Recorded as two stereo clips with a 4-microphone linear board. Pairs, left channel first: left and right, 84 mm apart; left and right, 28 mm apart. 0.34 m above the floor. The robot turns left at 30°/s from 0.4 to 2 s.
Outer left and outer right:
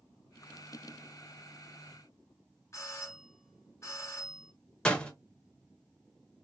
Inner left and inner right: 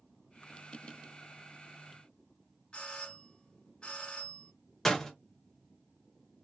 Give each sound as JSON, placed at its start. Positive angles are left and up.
{"t": 2.7, "sound": "a doorbell", "side_deg": 35, "distance_m": 1.6}
{"t": 4.8, "sound": "a door slam", "side_deg": 10, "distance_m": 0.8}